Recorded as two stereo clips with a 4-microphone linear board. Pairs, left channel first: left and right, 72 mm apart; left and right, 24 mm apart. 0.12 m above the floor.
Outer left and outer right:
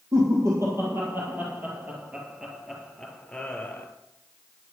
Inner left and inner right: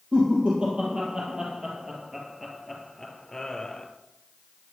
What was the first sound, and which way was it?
Laughter, 45° right (ahead or behind).